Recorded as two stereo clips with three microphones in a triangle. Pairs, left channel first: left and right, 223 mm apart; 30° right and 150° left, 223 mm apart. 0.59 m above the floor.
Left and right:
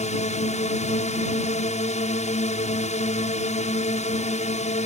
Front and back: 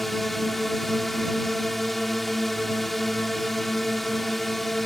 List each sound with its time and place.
0.0 s a drone: 60° left